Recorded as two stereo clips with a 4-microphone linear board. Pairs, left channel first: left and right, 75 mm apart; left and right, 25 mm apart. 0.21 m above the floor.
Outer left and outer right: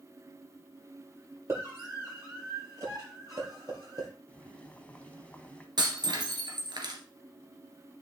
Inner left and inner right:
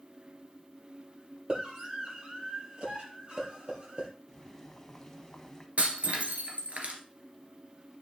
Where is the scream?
35° right (ahead or behind), 7.5 m; by 4.1 s 50° right (ahead or behind), 7 m.